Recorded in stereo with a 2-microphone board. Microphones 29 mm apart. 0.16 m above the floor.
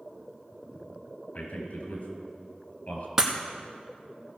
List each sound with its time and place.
1.3 s a man speaking: 55° left (ahead or behind), 3 m
3.2 s breaking glass: 10° right (ahead or behind), 1.4 m